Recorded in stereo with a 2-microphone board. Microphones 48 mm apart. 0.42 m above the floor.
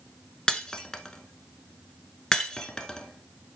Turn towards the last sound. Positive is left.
turn(degrees=15)  # may be behind; listen again after turning